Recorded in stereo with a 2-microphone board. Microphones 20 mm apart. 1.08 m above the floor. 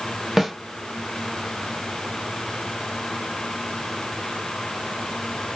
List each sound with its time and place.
0.4 s a snare drum: 20° right (ahead or behind), 0.8 m